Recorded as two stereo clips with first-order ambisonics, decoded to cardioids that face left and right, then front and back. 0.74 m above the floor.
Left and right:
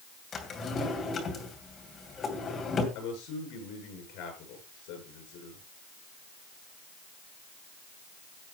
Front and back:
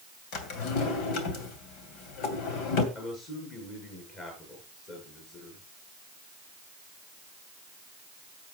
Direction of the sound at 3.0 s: 65° left.